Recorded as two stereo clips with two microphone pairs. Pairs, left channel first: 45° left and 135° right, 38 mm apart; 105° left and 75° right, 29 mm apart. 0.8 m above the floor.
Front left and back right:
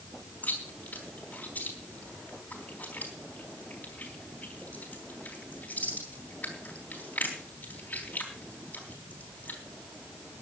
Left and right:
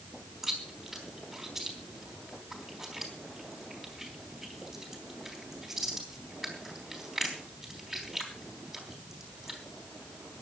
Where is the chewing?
5° left, 3.5 m.